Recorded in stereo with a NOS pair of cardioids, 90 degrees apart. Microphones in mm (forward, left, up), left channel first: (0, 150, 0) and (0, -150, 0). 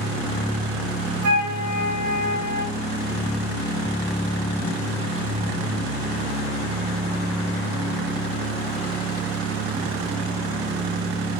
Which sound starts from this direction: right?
A flute, at 1.2 s.